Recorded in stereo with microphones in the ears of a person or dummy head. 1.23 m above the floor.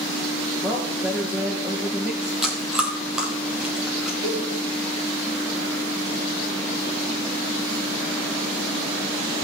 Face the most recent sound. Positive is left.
turn(degrees=-15)  # may be behind; listen again after turning